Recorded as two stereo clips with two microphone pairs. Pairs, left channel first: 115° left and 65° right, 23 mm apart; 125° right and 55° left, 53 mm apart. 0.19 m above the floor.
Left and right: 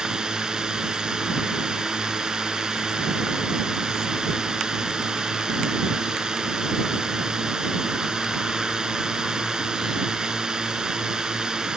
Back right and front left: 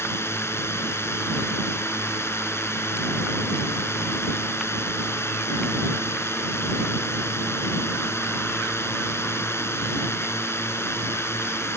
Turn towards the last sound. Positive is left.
turn(degrees=-115)